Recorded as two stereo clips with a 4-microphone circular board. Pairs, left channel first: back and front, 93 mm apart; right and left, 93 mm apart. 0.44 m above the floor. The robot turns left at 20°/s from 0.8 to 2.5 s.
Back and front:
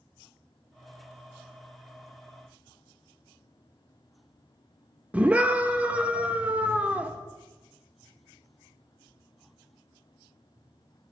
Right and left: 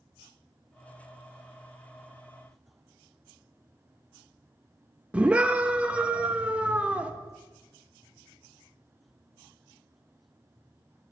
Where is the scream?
45° left, 0.7 m.